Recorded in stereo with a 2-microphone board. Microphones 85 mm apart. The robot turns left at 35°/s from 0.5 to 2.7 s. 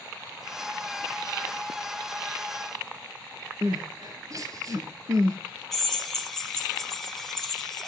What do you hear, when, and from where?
3.6 s crying: 45° right (ahead or behind), 2 m
5.7 s a drill: 5° left (ahead or behind), 2.5 m